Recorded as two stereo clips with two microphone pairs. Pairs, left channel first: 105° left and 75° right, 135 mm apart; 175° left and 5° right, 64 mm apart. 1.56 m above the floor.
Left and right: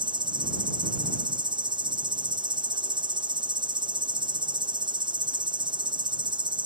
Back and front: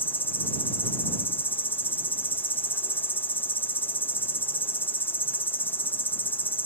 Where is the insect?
130° right.